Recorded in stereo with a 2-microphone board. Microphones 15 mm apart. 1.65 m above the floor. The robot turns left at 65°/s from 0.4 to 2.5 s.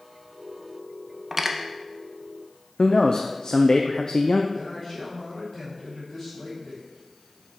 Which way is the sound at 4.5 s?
35° left (ahead or behind).